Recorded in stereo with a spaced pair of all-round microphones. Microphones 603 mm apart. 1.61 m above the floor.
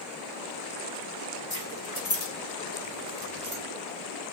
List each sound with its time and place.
1.5 s keys jangling: 65° left (ahead or behind), 1.9 m; by 3.6 s 55° right (ahead or behind), 1.3 m